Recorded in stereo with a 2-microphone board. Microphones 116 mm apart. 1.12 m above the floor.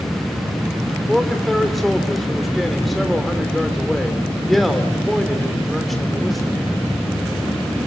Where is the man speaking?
Centre (ahead or behind), 3 m.